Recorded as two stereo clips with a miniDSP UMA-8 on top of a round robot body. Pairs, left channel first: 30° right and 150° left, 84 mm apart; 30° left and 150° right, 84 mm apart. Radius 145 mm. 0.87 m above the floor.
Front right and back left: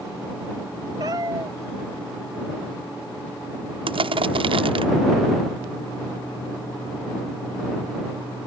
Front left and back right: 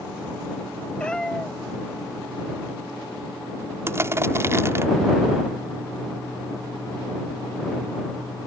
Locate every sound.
1.0 s a cat meowing: 105° left
3.9 s crushing: 150° left